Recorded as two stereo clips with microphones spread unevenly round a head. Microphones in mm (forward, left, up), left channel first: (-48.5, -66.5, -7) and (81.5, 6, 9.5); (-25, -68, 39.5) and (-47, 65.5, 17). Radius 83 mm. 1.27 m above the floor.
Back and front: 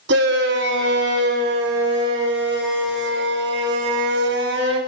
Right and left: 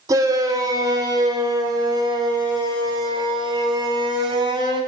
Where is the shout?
30° left, 5 m; by 4.8 s 35° left, 8.5 m.